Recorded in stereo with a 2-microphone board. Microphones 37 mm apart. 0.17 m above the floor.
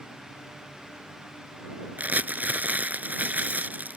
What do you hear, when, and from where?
2.0 s crumpling: 50° right (ahead or behind)